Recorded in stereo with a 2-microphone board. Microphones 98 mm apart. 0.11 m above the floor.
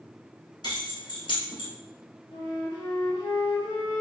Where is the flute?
45° left (ahead or behind), 1.6 m.